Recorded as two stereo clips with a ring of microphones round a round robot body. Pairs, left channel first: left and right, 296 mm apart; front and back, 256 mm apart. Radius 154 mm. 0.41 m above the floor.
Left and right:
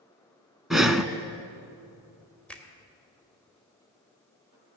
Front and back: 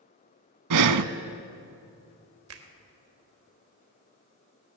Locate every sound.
0.7 s breathing: straight behind, 0.5 m
2.5 s a finger snap: 175° left, 1.4 m